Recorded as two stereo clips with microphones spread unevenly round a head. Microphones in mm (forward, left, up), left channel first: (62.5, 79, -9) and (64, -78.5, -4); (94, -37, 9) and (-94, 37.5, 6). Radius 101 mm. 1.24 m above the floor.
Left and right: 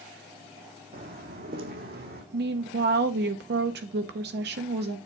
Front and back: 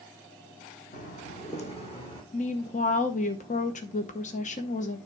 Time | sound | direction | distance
0.9 | footsteps | 70° right | 3 m
2.3 | a woman speaking | 75° right | 0.9 m